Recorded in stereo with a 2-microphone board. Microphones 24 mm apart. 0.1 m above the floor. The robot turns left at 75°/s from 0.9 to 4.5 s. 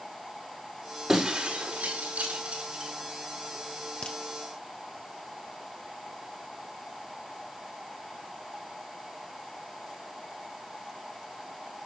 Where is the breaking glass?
20° right (ahead or behind), 4.5 m; by 2.9 s 25° right (ahead or behind), 4.5 m.